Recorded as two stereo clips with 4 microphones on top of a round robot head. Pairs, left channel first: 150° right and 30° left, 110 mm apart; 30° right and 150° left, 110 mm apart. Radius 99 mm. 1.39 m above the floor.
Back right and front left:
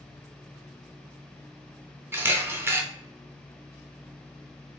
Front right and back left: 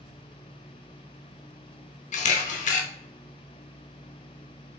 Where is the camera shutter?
40° right, 0.6 m.